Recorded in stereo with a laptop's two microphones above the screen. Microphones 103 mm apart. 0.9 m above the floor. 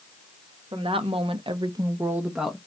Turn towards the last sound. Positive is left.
turn(degrees=0)  # may be behind; listen again after turning